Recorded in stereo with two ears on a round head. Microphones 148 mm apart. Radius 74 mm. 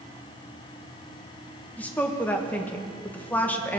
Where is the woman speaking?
10° left (ahead or behind), 1.3 m.